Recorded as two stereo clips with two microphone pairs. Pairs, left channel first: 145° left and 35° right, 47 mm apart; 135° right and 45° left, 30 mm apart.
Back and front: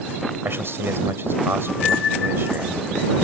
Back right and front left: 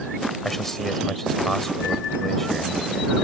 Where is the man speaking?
55° right.